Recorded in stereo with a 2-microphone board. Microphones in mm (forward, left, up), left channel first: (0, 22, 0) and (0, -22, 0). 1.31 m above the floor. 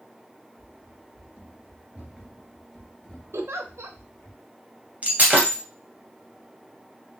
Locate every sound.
0.6 s running footsteps: 40° right (ahead or behind), 1.6 m; by 4.3 s 30° left (ahead or behind), 1.7 m
3.3 s a giggle: 75° right (ahead or behind), 0.5 m
5.0 s breaking glass: 30° right (ahead or behind), 1.6 m